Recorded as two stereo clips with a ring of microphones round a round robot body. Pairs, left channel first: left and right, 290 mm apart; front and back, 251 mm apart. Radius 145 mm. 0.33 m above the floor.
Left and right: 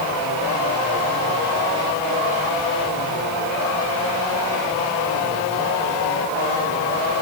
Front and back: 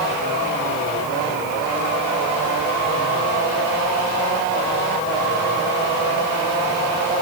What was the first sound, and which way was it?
Only background noise.